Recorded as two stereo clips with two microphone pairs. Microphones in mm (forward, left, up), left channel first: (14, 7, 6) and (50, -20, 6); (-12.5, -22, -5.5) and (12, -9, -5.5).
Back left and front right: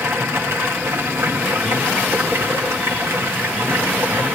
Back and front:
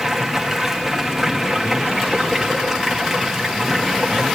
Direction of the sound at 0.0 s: 55° right.